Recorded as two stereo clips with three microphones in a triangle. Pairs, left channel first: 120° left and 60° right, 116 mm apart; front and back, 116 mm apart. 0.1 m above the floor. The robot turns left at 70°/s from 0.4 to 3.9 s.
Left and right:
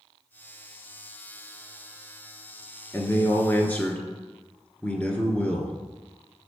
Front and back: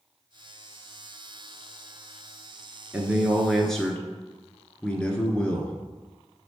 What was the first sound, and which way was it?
A man speaking, 135° left.